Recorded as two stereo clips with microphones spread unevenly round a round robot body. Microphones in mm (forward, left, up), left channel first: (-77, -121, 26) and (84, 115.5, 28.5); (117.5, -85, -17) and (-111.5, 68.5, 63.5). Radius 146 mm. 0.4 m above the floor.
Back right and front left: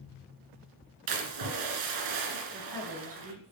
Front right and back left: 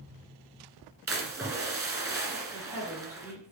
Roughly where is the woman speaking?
Ahead left.